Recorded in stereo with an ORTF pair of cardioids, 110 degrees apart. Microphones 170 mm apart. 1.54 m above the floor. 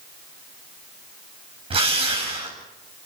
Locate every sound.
1.7 s a drill: 35° right, 8.5 m